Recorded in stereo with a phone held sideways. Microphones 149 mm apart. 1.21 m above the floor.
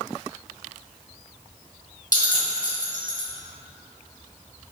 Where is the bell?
75° left (ahead or behind), 1.7 m.